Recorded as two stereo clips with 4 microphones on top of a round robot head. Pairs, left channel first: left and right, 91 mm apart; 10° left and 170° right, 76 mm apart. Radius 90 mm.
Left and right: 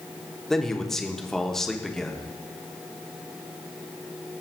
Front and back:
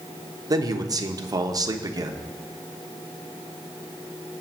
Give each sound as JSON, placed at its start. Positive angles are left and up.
{"t": 0.5, "sound": "a man speaking", "azimuth_deg": 175, "distance_m": 1.2}